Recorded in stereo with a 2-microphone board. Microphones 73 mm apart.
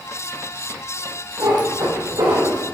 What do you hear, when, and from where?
1.4 s a cat meowing: 80° right, 3 m; by 2.6 s 75° right (ahead or behind), 3 m